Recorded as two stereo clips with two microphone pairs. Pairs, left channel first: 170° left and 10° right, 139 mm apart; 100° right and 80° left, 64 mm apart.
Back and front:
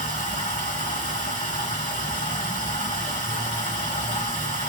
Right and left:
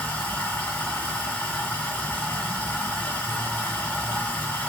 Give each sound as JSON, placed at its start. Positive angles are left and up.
{"t": 0.0, "sound": "running water", "azimuth_deg": -160, "distance_m": 2.0}